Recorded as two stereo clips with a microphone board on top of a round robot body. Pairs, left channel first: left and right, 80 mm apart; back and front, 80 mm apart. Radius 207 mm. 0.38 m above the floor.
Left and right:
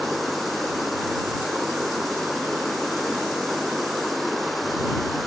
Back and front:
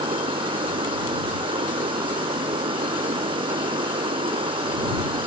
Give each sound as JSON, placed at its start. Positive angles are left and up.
{"t": 0.0, "sound": "running water", "azimuth_deg": 0}